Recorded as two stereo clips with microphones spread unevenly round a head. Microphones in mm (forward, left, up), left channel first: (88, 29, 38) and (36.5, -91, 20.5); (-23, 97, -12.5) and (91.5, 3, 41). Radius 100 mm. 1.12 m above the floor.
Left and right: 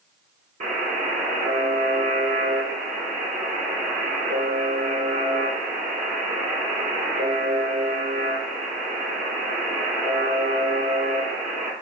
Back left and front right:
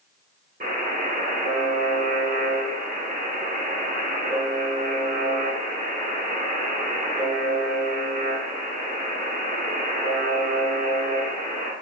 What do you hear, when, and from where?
0.6 s a buzzer: 85° right, 2.0 m